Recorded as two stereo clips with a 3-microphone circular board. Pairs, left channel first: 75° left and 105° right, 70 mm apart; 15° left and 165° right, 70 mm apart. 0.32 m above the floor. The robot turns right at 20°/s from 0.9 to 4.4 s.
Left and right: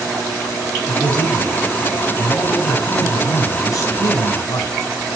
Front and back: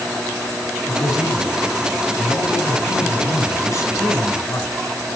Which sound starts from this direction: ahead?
A man speaking, at 0.9 s.